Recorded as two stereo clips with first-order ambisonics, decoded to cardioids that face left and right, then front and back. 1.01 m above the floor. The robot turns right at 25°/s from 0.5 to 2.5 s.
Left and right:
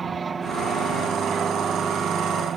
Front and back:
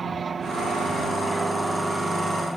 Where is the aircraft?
145° right; by 2.6 s 95° right.